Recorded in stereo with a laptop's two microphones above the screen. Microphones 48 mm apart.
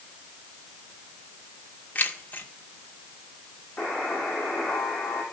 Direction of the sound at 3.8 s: 25° left (ahead or behind).